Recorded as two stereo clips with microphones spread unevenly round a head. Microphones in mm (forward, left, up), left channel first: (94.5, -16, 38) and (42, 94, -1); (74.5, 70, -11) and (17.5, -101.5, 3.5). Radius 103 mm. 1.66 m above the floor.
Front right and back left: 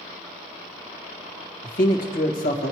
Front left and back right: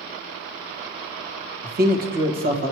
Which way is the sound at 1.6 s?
65° right.